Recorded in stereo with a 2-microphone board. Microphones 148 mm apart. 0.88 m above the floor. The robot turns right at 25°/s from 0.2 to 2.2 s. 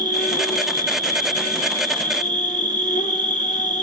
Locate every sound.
0.0 s an insect: 70° left, 1.2 m; by 3.8 s 120° left, 1.2 m